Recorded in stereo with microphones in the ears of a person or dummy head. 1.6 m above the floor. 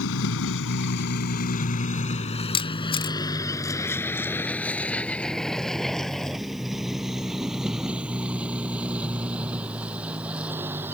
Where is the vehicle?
75° left (ahead or behind); by 10.9 s 10° right (ahead or behind).